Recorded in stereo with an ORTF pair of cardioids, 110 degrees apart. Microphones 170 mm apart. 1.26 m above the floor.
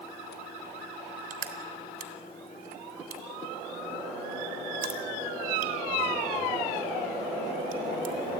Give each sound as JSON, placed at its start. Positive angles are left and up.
{"t": 1.3, "sound": "crushing", "azimuth_deg": -65, "distance_m": 3.5}